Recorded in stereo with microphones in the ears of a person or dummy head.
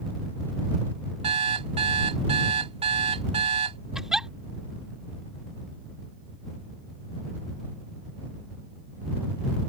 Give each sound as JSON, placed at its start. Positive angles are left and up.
{"t": 1.2, "sound": "an alarm clock", "side_deg": -30}
{"t": 4.0, "sound": "a giggle", "side_deg": 0}